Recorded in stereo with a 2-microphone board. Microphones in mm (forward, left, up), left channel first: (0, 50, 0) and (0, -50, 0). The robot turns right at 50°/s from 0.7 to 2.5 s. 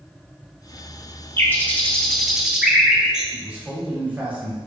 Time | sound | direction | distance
1.4 | a bird | 20° left (ahead or behind) | 0.9 m
3.3 | a man speaking | 15° right (ahead or behind) | 1.4 m